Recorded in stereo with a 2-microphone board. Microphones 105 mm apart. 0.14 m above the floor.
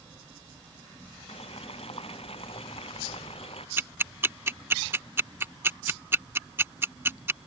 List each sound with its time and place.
1.3 s boiling: 65° left (ahead or behind)
3.8 s ticking: 25° right (ahead or behind)